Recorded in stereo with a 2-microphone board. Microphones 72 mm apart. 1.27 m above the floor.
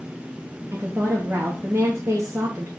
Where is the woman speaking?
35° right (ahead or behind), 0.8 m.